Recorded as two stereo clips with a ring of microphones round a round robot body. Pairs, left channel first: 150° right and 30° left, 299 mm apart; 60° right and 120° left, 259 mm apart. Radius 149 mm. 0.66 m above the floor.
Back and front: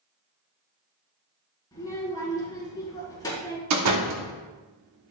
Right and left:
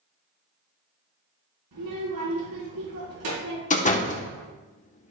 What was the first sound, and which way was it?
A child speaking, 130° left.